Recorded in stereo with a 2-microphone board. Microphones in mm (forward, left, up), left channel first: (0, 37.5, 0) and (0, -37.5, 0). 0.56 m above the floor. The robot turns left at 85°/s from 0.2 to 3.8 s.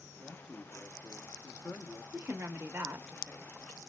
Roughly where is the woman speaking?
Right.